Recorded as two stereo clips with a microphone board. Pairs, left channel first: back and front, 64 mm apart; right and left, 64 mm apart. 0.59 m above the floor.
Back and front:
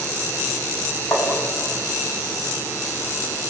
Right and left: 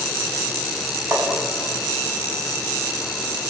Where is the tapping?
135° left, 6 m.